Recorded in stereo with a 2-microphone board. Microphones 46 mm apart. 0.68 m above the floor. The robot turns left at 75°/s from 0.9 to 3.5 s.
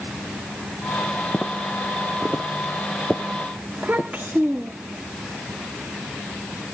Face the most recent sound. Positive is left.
turn(degrees=-25)  # may be behind; listen again after turning